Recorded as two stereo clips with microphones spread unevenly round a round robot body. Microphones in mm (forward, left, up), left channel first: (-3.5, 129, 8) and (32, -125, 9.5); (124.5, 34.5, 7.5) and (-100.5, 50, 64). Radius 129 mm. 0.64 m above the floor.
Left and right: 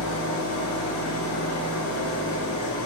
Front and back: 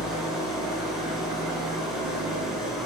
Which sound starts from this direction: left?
An engine running, at 0.0 s.